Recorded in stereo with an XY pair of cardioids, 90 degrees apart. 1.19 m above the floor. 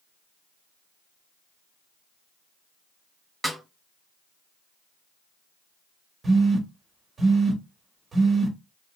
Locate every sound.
3.4 s a snare drum: straight ahead, 1.6 m
6.2 s a phone buzzing: 40° right, 1.3 m